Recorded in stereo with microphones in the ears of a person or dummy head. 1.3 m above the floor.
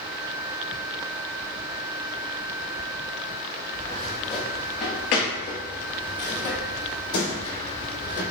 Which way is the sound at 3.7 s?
20° left (ahead or behind).